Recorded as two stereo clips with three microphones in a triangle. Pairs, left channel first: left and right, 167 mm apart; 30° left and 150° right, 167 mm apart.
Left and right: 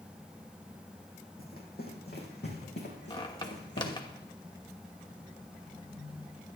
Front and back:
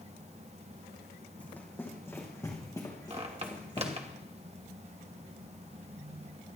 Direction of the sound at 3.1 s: 155° left.